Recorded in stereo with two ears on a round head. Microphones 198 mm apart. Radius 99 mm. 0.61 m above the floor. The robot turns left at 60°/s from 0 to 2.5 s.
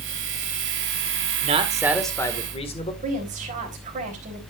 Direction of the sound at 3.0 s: 35° right (ahead or behind).